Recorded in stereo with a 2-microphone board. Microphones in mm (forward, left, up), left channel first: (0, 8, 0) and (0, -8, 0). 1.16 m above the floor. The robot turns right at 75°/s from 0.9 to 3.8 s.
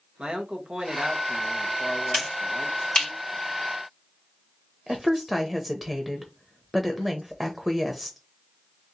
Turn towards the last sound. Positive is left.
turn(degrees=-5)  # may be behind; listen again after turning